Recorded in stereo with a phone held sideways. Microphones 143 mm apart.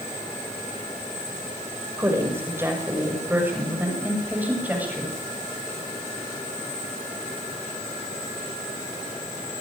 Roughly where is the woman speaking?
Centre.